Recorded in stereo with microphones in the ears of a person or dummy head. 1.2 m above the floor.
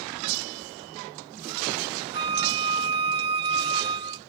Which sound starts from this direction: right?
A flute, at 2.1 s.